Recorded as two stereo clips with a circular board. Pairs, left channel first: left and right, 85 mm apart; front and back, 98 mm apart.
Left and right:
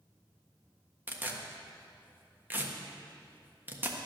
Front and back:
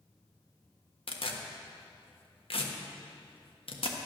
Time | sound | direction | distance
1.1 | tearing paper | 20° right | 1.3 m